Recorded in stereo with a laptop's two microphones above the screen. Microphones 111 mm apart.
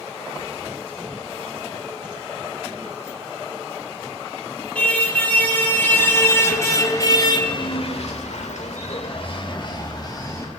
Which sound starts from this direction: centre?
A car horn, at 4.8 s.